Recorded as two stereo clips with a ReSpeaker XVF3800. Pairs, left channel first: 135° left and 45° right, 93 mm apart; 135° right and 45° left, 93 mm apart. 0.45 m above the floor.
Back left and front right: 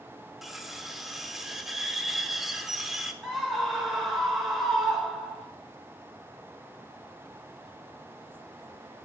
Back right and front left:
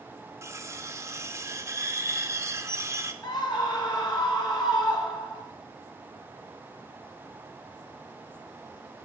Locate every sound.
0.4 s cutlery clinking: 40° left, 0.6 m
3.2 s a scream: 135° right, 1.9 m